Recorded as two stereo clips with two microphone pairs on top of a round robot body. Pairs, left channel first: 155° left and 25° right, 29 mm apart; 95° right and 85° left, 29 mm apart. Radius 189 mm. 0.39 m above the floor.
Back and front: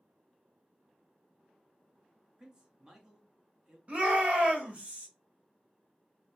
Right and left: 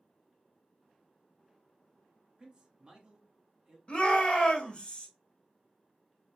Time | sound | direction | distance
2.4 | a man speaking | 35° left | 1.6 m
3.9 | a shout | 70° right | 1.4 m